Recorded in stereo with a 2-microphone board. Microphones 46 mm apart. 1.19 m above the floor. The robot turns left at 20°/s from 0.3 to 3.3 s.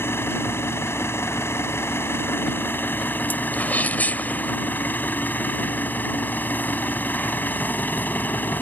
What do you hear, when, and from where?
0.0 s an engine running: 110° left; by 8.6 s 50° left
3.5 s a sneeze: 40° left (ahead or behind)